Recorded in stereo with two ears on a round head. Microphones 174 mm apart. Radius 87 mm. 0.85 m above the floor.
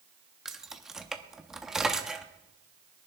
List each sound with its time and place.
0.5 s keys jangling: 5° right (ahead or behind), 0.9 m